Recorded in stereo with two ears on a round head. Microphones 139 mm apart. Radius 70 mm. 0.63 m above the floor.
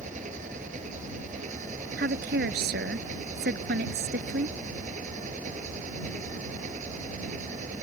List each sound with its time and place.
0.0 s an engine running: 50° right (ahead or behind)
2.0 s a woman speaking: 70° right (ahead or behind)